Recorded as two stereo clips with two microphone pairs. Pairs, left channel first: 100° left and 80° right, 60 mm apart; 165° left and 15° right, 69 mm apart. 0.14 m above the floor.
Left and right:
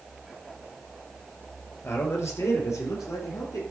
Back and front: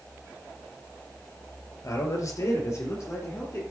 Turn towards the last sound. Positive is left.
turn(degrees=115)